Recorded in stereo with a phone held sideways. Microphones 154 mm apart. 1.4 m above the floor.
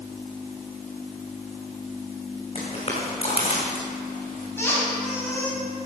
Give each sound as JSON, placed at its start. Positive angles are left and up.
{"t": 2.5, "sound": "footsteps", "side_deg": 35, "distance_m": 5.5}
{"t": 4.6, "sound": "a squeak", "side_deg": 15, "distance_m": 4.5}